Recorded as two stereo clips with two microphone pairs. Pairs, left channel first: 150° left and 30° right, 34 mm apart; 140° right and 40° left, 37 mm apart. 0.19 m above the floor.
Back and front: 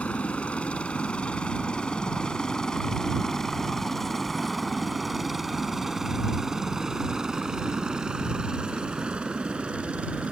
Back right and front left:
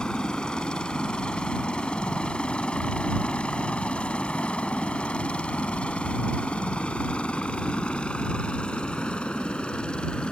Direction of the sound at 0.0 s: 165° left.